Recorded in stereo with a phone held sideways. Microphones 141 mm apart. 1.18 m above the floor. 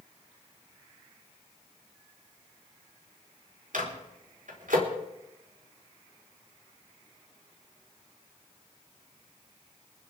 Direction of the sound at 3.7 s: 85° right.